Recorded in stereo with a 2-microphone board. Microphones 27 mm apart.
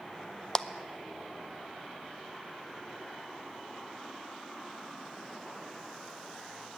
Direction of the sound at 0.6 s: 20° left (ahead or behind).